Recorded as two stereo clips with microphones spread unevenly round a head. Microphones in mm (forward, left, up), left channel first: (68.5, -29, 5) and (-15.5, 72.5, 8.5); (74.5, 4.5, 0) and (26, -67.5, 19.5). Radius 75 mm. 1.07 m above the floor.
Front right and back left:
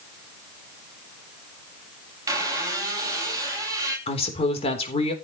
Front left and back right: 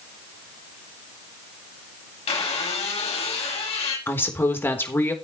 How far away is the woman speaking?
About 4 m.